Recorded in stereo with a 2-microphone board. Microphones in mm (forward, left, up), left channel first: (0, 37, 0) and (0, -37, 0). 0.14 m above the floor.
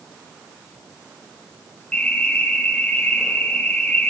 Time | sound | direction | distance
1.9 | an alarm | 15° left (ahead or behind) | 5.5 m